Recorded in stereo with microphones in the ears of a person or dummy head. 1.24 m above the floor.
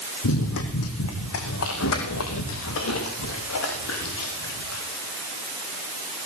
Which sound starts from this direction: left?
Running footsteps, at 0.2 s.